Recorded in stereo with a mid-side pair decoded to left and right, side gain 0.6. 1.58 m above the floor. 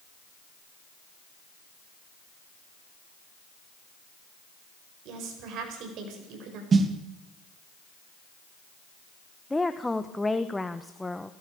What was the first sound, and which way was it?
A woman speaking, 65° right.